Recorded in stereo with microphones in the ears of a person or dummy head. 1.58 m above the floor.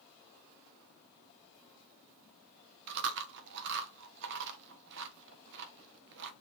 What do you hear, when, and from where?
2.9 s chewing: 60° right (ahead or behind), 0.9 m